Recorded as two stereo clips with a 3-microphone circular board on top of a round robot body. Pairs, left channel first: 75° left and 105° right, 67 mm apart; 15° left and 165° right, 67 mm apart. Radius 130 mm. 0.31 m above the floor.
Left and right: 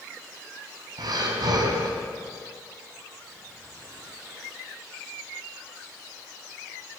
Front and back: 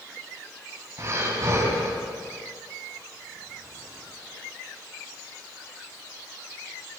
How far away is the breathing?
About 4 m.